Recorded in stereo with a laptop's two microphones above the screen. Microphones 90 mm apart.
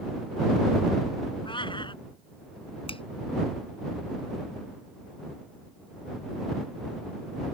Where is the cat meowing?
65° left (ahead or behind).